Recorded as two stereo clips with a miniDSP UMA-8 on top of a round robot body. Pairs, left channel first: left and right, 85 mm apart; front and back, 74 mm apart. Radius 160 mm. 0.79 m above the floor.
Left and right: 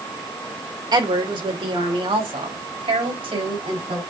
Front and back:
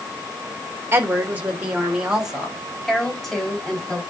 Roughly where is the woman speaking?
Behind right.